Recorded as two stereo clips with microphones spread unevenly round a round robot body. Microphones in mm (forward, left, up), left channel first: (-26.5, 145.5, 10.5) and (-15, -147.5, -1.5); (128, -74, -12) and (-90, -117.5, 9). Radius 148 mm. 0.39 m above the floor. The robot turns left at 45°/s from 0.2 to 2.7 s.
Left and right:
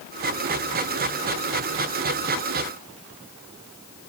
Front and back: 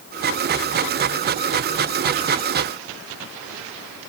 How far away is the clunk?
No clunk in this recording.